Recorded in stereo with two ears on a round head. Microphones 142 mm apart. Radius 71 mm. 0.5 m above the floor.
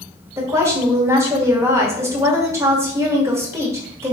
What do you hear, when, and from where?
0.4 s a woman speaking: 20° right (ahead or behind), 1.2 m